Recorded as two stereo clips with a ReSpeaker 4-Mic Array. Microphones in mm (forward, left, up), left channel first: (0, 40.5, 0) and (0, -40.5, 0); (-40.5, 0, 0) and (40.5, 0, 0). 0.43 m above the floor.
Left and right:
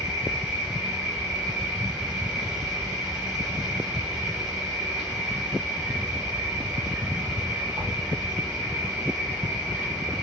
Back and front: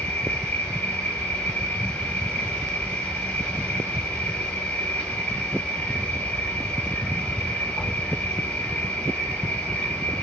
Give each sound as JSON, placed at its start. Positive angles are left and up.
{"t": 0.0, "sound": "an insect", "azimuth_deg": -155, "distance_m": 2.0}